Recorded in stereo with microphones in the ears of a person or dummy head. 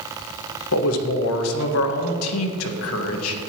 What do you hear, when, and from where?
0.7 s a man speaking: 80° left, 1.4 m